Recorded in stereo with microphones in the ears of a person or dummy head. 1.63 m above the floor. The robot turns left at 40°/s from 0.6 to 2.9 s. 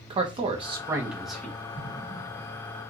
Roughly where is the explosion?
Behind.